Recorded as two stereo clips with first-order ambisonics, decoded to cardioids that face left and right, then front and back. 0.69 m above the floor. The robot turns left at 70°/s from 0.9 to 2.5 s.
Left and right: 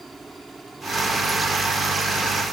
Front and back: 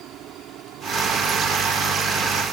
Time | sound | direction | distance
0.0 | a helicopter | 170° right | ?